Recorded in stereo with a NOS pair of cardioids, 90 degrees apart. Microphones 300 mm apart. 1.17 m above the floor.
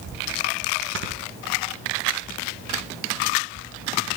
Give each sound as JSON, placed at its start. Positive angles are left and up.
{"t": 0.9, "sound": "snoring", "azimuth_deg": -45, "distance_m": 1.0}